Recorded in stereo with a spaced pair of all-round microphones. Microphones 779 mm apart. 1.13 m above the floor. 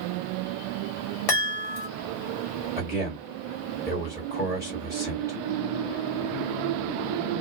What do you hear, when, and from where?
1.3 s a chime: 45° left (ahead or behind), 1.1 m
2.8 s a man speaking: 5° right (ahead or behind), 1.7 m